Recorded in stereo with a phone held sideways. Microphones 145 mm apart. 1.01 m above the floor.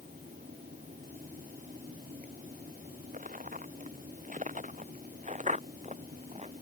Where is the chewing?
No chewing in this recording.